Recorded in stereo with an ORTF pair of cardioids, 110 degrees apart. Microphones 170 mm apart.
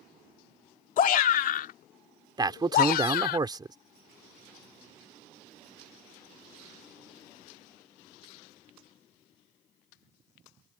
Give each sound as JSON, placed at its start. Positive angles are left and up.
{"t": 1.0, "sound": "a shout", "azimuth_deg": 55}
{"t": 2.4, "sound": "a man speaking", "azimuth_deg": -25}